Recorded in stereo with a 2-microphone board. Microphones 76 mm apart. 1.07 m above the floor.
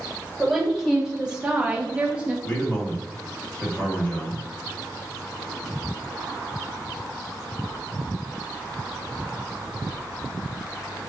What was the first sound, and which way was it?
A woman speaking, centre (ahead or behind).